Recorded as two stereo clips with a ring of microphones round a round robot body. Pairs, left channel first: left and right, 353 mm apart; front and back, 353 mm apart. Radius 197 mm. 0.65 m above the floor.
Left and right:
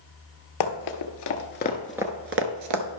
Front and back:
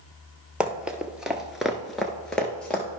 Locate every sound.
0.6 s running footsteps: 95° left, 1.1 m; by 2.9 s 85° right, 0.9 m